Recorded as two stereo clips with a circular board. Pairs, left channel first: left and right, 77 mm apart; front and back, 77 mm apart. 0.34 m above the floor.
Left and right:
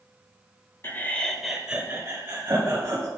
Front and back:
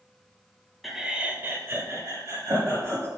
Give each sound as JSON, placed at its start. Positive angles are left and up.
{"t": 0.8, "sound": "laughter", "azimuth_deg": 90, "distance_m": 1.0}